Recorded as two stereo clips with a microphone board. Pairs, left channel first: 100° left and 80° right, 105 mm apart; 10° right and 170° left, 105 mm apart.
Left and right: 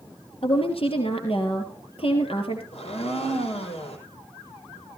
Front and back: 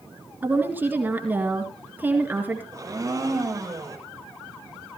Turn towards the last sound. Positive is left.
turn(degrees=110)